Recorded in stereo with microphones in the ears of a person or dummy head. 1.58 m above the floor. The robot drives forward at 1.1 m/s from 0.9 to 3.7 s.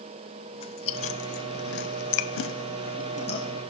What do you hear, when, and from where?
0.5 s chewing: 30° left (ahead or behind), 1.7 m